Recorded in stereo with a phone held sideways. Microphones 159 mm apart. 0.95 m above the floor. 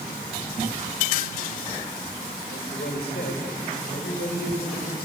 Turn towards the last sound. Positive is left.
turn(degrees=80)